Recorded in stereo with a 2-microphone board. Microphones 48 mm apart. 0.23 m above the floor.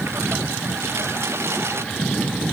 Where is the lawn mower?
60° right (ahead or behind).